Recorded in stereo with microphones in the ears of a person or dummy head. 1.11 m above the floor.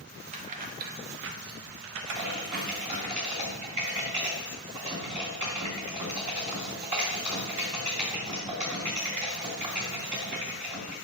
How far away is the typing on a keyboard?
About 2.5 m.